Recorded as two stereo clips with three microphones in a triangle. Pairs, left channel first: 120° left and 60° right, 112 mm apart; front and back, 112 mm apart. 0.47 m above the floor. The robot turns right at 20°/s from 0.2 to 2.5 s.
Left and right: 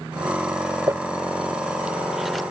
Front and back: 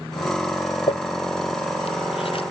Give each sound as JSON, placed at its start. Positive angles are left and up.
{"t": 0.9, "sound": "crumpling", "azimuth_deg": 0}